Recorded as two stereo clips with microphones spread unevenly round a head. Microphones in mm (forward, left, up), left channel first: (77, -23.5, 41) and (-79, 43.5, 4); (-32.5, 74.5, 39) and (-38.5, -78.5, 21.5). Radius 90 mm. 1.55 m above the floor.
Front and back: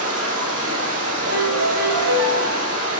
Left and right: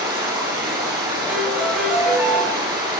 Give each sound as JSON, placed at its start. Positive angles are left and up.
{"t": 0.0, "sound": "running water", "azimuth_deg": -155, "distance_m": 6.0}
{"t": 1.3, "sound": "a piano", "azimuth_deg": -175, "distance_m": 7.5}